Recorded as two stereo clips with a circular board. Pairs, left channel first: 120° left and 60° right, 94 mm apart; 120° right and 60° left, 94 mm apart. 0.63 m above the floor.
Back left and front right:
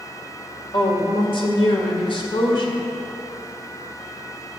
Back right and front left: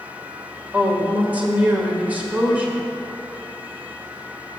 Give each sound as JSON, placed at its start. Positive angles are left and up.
{"t": 0.7, "sound": "a woman speaking", "azimuth_deg": 135, "distance_m": 1.7}